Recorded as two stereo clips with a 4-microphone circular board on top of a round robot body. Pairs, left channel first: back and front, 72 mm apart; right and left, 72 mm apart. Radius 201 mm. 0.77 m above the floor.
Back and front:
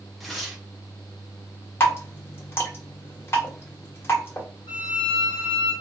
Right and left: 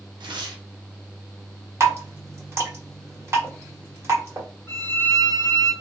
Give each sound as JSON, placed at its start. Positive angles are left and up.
{"t": 0.2, "sound": "tearing paper", "azimuth_deg": 90, "distance_m": 0.6}
{"t": 1.8, "sound": "dripping", "azimuth_deg": 130, "distance_m": 1.5}
{"t": 4.7, "sound": "a violin", "azimuth_deg": -155, "distance_m": 0.9}